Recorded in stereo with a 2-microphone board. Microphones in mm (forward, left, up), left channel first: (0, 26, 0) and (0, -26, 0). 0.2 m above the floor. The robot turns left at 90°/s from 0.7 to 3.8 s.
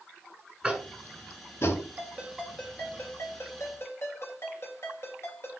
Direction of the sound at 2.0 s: 135° right.